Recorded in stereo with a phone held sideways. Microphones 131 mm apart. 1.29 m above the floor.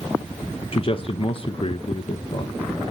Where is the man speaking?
45° left (ahead or behind), 0.7 m.